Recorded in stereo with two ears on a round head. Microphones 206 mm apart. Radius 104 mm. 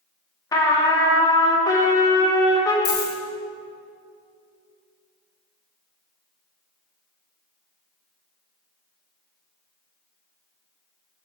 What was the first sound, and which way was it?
A trumpet, 15° left (ahead or behind).